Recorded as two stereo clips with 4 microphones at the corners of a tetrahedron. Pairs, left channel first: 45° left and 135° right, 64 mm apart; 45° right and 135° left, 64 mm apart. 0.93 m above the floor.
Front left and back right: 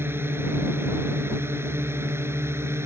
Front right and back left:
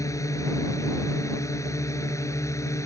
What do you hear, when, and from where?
0.0 s a drone: 80° right; by 2.9 s 85° right